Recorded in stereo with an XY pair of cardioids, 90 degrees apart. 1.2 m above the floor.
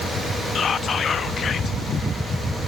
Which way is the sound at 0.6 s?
55° left.